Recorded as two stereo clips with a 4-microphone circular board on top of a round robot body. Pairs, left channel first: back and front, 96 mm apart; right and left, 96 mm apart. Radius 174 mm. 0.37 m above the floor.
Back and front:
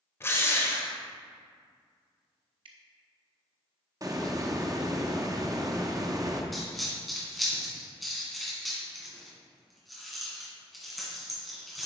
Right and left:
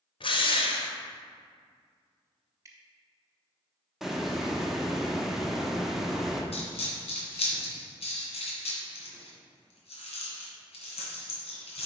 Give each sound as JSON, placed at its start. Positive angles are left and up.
{"t": 0.2, "sound": "a drill", "azimuth_deg": -115, "distance_m": 1.1}
{"t": 2.6, "sound": "dripping", "azimuth_deg": 30, "distance_m": 0.7}
{"t": 4.0, "sound": "a hiss", "azimuth_deg": 5, "distance_m": 1.3}
{"t": 6.5, "sound": "a dropped coin", "azimuth_deg": -90, "distance_m": 2.0}